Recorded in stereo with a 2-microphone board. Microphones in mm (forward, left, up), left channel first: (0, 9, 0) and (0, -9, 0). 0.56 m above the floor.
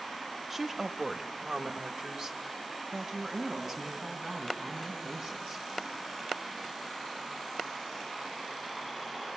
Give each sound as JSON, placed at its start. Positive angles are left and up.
{"t": 0.5, "sound": "a woman speaking", "side_deg": -20, "distance_m": 0.8}